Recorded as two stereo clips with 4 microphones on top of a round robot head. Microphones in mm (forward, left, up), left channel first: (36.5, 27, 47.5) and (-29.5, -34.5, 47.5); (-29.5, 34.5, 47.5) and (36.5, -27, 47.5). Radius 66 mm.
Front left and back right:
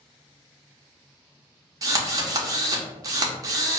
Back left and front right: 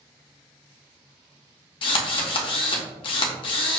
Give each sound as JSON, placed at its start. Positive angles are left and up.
{"t": 1.8, "sound": "a drill", "azimuth_deg": 170, "distance_m": 0.8}